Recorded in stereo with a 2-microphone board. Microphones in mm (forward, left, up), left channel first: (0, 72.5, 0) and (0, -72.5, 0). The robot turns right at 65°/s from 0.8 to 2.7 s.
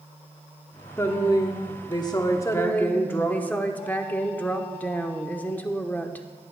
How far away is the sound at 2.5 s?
About 0.9 m.